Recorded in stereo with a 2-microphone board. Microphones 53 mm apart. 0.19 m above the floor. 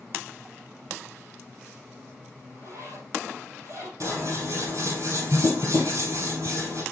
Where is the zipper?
65° right (ahead or behind), 4 m.